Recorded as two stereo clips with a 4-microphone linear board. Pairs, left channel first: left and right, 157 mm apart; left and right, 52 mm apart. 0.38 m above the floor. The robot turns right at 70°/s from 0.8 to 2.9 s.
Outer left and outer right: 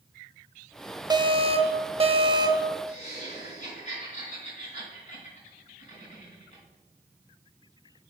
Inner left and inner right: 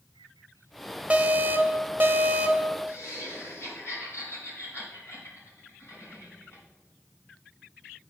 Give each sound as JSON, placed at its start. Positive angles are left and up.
{"t": 1.1, "sound": "an alarm", "azimuth_deg": -135, "distance_m": 0.7}
{"t": 2.9, "sound": "laughter", "side_deg": 50, "distance_m": 3.0}